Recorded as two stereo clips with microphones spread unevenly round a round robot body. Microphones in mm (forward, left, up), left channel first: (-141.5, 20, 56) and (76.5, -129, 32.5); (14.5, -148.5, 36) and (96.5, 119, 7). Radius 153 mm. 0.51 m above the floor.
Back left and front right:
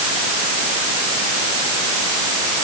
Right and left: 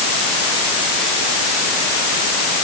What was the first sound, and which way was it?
Only background noise.